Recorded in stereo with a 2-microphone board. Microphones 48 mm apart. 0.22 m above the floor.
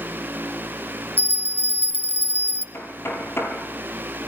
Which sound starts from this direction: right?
A bell, at 1.2 s.